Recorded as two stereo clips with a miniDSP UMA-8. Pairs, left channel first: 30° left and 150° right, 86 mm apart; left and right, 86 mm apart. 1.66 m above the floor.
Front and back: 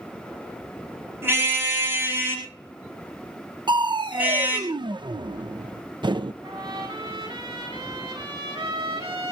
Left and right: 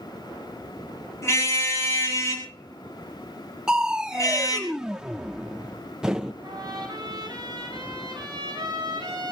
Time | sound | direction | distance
1.2 | a car horn | 145° left | 9 m
3.7 | crushing | 170° right | 1.0 m
6.4 | a trumpet | 130° right | 8.5 m